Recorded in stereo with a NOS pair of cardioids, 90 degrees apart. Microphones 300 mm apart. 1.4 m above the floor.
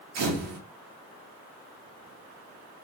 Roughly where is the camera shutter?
Ahead right.